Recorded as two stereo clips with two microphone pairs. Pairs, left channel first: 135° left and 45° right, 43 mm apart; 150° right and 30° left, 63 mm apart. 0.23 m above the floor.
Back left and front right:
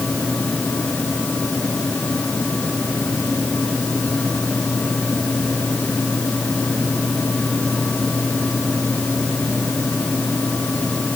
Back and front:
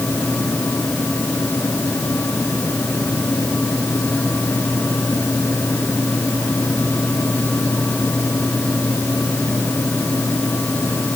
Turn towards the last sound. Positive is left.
No sound to turn to.